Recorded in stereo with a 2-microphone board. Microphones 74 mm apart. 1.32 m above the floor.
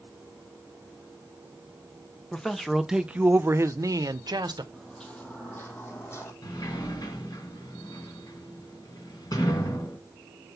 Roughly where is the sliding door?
Left.